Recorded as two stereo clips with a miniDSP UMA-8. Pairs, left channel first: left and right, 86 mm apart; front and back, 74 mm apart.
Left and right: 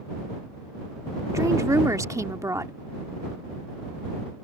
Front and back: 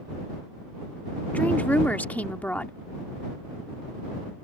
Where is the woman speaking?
60° right.